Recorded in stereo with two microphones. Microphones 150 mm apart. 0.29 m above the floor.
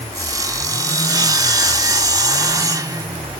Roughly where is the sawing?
Right.